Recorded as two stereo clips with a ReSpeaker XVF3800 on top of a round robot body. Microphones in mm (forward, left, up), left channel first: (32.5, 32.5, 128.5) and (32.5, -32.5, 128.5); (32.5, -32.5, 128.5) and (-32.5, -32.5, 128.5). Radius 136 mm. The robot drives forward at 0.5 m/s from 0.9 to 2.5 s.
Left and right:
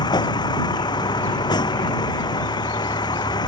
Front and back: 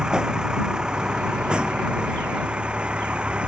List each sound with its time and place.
0.0 s a vehicle: 100° left